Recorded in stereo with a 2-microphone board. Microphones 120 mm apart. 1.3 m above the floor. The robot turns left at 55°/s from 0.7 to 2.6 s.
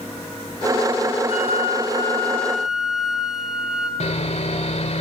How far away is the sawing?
About 2.0 m.